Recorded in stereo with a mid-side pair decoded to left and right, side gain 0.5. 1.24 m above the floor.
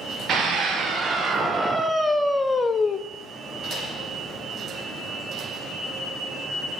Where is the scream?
50° right, 1.5 m; by 3.0 s 40° left, 0.8 m.